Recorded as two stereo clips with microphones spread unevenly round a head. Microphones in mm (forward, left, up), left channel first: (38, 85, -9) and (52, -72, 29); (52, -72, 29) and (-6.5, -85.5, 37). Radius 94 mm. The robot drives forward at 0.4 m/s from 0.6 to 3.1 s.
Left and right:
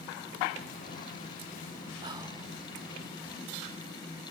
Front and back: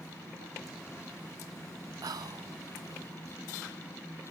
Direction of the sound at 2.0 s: 150° right.